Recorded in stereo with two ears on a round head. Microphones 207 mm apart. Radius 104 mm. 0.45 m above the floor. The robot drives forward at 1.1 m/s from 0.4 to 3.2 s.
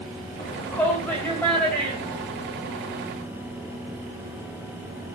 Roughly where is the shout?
Centre.